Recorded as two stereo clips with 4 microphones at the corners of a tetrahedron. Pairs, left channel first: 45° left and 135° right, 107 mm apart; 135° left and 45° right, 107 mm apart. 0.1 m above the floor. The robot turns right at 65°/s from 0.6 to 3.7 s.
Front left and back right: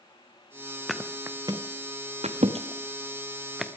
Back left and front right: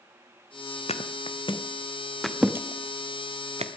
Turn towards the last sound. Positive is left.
turn(degrees=-45)